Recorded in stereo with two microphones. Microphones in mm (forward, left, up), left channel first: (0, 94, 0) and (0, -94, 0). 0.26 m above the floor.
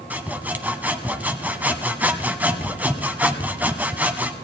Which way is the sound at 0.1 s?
10° right (ahead or behind).